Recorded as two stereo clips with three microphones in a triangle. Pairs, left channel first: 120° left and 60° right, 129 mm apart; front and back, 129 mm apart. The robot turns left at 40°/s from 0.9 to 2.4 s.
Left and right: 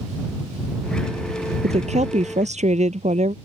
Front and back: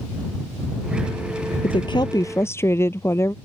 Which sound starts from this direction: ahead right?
A woman speaking, at 1.6 s.